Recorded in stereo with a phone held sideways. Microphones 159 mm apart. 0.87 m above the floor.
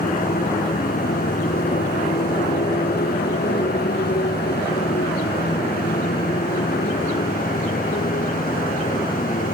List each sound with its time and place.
0.0 s a motorcycle: 65° left (ahead or behind); by 9.6 s 60° left (ahead or behind)